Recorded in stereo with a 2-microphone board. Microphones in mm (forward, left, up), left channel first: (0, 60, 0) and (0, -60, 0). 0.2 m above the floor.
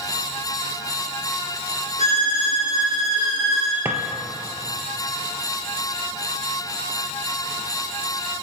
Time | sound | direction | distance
2.0 | a violin | 80° left | 3.5 m
3.9 | a drawer | 20° right (ahead or behind) | 1.2 m